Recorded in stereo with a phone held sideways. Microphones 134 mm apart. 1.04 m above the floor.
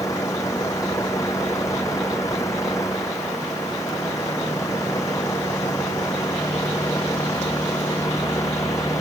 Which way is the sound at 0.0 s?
20° left (ahead or behind).